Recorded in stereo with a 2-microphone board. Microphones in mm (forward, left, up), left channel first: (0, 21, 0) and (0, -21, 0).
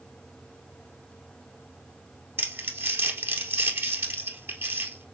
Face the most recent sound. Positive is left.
turn(degrees=-70)  # may be behind; listen again after turning